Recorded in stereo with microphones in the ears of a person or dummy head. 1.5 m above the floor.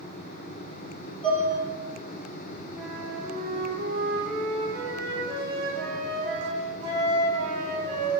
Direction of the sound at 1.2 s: 5° left (ahead or behind).